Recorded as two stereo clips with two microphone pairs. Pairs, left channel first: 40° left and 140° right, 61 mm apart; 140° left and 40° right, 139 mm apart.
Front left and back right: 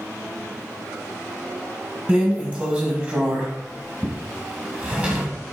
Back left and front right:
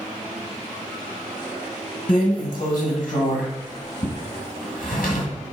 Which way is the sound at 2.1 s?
155° left.